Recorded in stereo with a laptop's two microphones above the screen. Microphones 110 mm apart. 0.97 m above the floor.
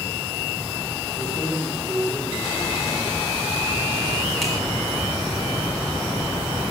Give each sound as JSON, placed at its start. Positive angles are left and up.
{"t": 1.2, "sound": "keys jangling", "side_deg": -5, "distance_m": 9.0}